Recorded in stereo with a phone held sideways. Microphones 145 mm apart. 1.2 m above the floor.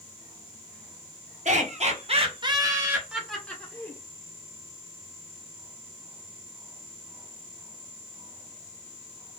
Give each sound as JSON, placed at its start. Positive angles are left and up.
{"t": 1.4, "sound": "laughter", "side_deg": -60, "distance_m": 1.0}